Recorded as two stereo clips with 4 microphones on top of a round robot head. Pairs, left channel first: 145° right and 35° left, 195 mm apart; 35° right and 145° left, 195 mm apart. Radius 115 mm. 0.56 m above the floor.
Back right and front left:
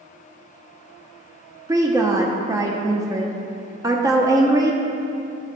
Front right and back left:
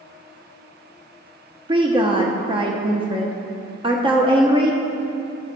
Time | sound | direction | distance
1.7 | a woman speaking | 100° left | 0.9 m